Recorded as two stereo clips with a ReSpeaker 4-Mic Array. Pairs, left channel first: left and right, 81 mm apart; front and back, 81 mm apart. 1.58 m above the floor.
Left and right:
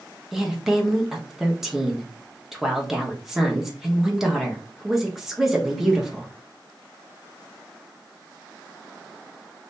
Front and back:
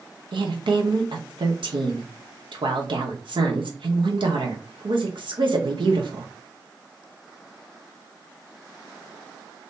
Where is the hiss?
I don't hear a hiss.